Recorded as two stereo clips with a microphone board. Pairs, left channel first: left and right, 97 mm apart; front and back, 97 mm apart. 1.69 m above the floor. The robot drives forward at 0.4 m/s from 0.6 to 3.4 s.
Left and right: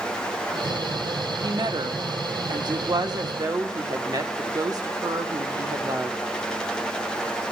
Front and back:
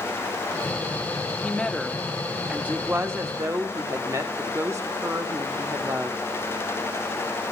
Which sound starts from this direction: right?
A woman speaking, at 1.4 s.